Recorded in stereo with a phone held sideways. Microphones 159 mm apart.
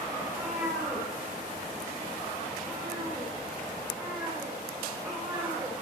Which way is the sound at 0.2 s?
10° right (ahead or behind).